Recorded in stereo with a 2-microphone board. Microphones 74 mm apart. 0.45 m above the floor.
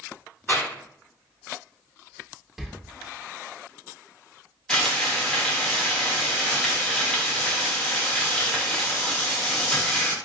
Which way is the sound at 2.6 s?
5° right (ahead or behind).